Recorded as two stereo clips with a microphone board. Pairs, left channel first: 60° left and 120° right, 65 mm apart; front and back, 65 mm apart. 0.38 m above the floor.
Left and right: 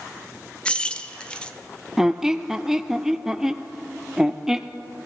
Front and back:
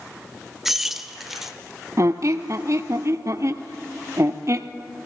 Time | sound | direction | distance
0.7 | keys jangling | 105° left | 0.6 m
2.0 | a squeak | 160° left | 0.5 m